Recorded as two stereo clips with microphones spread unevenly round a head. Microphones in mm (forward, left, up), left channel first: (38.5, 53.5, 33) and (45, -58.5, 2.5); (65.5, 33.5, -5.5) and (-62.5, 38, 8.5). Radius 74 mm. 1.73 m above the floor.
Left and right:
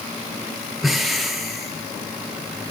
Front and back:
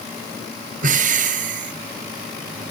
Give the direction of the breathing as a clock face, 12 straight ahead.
6 o'clock.